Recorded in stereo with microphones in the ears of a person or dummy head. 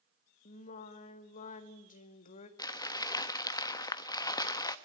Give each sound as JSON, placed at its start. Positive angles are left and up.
{"t": 0.5, "sound": "singing", "side_deg": 45, "distance_m": 1.4}
{"t": 2.6, "sound": "crumpling", "side_deg": 20, "distance_m": 0.9}